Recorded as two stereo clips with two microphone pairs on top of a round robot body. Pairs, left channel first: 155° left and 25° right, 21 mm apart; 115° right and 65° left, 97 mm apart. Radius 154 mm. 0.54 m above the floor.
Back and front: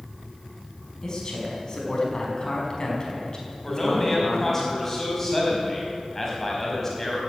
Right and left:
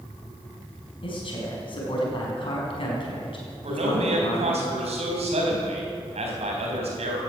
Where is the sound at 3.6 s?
75° left, 4 m.